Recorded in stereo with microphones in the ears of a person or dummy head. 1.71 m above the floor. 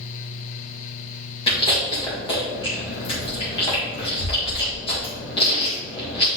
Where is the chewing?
35° left (ahead or behind), 1.9 m.